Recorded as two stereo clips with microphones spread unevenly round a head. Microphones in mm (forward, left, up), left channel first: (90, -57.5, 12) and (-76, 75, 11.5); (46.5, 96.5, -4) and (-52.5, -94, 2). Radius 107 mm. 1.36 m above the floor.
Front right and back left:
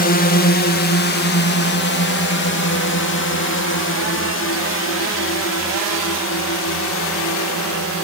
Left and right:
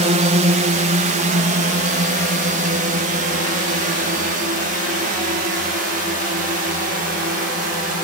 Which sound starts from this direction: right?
A drone, at 0.0 s.